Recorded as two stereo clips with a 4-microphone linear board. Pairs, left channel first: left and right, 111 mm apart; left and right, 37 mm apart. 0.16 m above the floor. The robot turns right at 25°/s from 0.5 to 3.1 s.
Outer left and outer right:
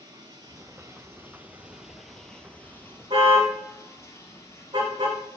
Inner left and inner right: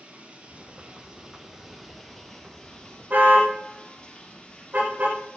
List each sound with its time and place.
0.0 s running water: 40° right, 3 m; by 5.4 s 25° left, 3 m
3.1 s a car horn: 50° right (ahead or behind), 6 m